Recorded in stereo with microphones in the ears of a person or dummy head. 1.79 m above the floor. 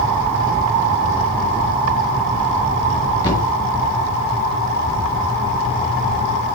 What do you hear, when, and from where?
3.2 s a thud: 15° left (ahead or behind), 1.1 m